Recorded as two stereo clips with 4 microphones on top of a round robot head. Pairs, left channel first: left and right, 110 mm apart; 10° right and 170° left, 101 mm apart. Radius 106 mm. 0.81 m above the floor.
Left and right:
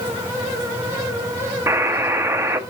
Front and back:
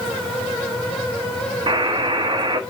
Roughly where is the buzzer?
Behind right.